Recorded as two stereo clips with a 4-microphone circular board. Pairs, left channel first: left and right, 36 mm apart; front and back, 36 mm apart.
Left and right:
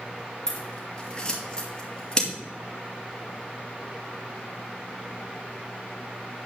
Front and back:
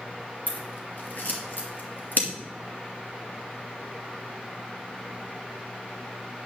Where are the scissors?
25° left, 2.5 m.